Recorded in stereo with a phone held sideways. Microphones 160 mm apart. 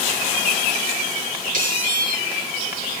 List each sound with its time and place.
1.5 s a squeak: 55° right (ahead or behind), 3.5 m